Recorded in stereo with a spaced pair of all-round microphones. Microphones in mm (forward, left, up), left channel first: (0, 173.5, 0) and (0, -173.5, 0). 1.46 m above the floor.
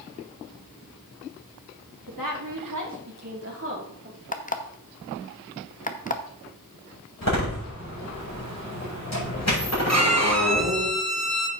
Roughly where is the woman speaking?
Right.